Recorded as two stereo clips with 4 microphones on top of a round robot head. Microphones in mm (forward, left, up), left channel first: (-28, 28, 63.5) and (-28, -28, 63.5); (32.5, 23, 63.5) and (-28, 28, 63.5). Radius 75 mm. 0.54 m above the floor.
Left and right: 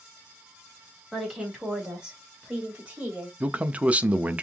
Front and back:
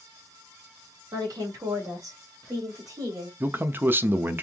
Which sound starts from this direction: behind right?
A man speaking, at 3.4 s.